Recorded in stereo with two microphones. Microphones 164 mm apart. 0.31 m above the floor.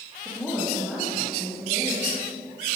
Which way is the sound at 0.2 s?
Centre (ahead or behind).